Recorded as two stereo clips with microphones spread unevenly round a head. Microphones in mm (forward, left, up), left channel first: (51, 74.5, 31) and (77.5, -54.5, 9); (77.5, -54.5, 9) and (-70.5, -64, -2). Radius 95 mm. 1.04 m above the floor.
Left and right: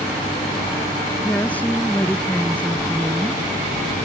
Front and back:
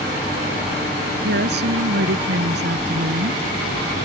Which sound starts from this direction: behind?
A woman speaking, at 1.2 s.